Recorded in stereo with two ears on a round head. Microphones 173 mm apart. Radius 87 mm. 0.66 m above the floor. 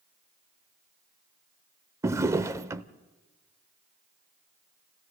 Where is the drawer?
15° right (ahead or behind), 0.6 m.